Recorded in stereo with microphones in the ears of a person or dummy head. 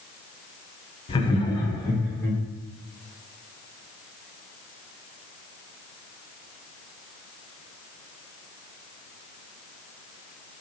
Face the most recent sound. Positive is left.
turn(degrees=10)  # may be behind; listen again after turning